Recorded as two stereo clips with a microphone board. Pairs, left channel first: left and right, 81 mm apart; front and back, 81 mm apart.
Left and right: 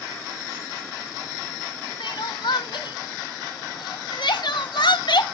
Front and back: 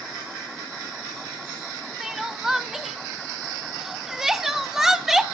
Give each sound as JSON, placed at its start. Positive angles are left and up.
{"t": 2.0, "sound": "crying", "azimuth_deg": 95, "distance_m": 0.7}